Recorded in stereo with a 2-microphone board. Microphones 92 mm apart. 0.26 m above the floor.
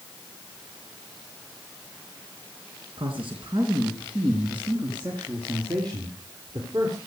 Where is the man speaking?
65° right (ahead or behind), 3 m; by 7.0 s 40° right (ahead or behind), 4.5 m.